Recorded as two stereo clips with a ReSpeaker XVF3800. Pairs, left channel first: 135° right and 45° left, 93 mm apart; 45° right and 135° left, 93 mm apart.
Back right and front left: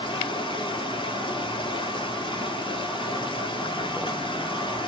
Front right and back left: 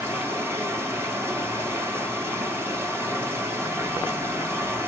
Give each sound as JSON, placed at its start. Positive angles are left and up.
{"t": 0.0, "sound": "running water", "azimuth_deg": -160, "distance_m": 1.8}